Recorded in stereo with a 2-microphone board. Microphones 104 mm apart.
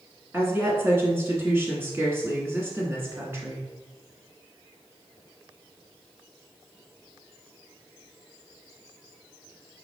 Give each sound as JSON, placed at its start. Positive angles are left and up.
{"t": 0.3, "sound": "a woman speaking", "side_deg": -25, "distance_m": 1.2}